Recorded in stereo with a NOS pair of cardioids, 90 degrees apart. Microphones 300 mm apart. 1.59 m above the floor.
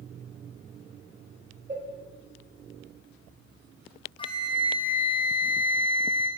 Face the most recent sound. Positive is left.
turn(degrees=20)